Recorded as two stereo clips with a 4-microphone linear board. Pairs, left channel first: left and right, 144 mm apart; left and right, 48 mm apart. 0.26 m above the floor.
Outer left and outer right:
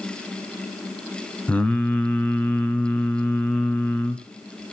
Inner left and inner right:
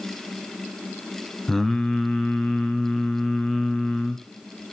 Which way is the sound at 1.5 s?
10° left (ahead or behind).